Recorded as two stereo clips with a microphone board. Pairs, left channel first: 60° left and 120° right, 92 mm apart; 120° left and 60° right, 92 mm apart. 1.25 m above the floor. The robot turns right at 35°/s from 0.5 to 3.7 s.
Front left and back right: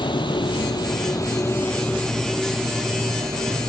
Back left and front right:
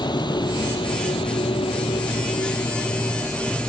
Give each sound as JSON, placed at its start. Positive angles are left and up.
{"t": 0.0, "sound": "a vehicle", "azimuth_deg": 85}